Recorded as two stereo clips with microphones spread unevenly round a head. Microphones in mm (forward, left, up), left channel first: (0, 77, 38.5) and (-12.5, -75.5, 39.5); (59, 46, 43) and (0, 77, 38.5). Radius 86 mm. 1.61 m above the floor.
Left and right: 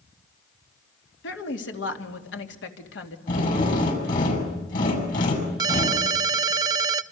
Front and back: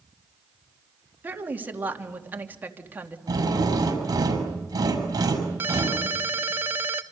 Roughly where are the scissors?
No scissors in this recording.